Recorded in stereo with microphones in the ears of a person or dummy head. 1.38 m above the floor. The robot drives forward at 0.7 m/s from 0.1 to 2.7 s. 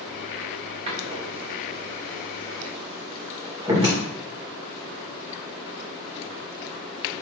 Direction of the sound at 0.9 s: 35° right (ahead or behind).